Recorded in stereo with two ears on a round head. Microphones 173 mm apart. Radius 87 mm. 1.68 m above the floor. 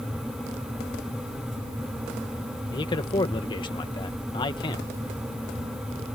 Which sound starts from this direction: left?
A man speaking, at 2.7 s.